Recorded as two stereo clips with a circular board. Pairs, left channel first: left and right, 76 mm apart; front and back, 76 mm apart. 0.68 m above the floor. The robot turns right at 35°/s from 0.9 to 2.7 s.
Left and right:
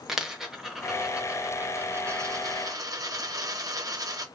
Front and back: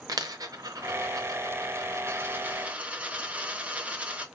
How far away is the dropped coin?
About 0.6 m.